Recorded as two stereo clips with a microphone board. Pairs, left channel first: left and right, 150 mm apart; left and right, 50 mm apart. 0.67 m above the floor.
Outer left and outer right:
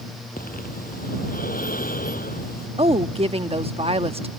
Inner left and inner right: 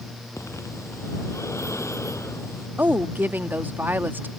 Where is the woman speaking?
40° right (ahead or behind).